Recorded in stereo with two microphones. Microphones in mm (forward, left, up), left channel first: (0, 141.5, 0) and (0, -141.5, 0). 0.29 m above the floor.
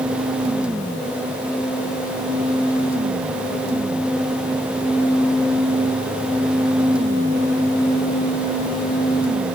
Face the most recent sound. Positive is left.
No sound to turn to.